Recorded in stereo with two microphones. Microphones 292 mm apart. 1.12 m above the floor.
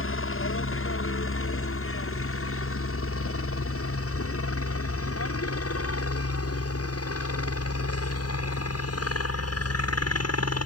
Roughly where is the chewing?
I don't hear chewing.